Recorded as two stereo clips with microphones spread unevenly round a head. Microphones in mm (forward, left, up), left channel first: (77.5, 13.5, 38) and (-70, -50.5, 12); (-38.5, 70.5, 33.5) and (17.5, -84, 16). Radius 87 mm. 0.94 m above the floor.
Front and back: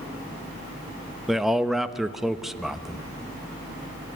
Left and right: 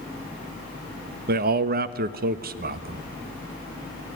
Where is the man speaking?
75° right, 1.0 m.